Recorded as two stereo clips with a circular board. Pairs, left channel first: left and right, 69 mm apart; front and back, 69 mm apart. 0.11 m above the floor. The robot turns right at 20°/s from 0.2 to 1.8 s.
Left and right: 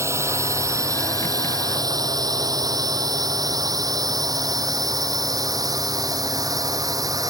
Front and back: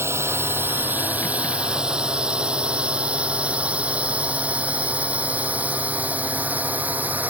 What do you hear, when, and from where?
0.0 s a drone: 130° right; by 7.3 s 115° right